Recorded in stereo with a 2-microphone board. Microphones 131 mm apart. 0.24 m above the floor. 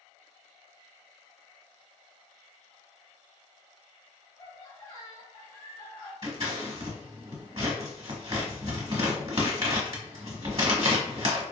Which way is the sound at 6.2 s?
45° right (ahead or behind).